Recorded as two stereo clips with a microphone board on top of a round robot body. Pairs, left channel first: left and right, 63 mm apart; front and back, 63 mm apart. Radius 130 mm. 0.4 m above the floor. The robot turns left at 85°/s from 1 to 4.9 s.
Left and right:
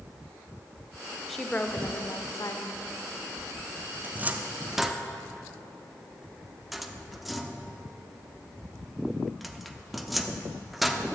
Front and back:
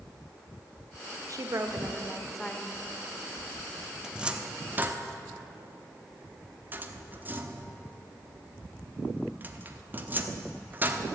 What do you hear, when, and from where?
1.3 s a woman speaking: straight behind, 1.3 m; by 2.8 s 50° left, 1.3 m
4.0 s a cupboard door: 105° right, 1.2 m; by 11.1 s straight behind, 1.2 m